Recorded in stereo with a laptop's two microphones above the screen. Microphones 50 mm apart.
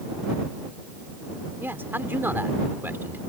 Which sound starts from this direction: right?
A man speaking, at 1.6 s.